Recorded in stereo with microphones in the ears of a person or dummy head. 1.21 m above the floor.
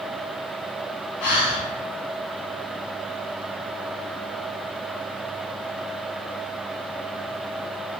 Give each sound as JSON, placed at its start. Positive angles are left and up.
{"t": 1.2, "sound": "breathing", "side_deg": 55, "distance_m": 0.6}